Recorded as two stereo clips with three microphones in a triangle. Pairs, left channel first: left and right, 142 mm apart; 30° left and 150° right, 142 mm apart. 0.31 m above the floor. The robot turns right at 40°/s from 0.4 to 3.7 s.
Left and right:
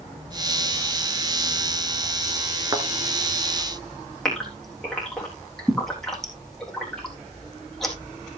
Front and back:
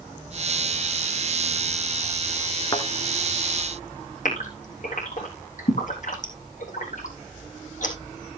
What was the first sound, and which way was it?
A thud, 30° right.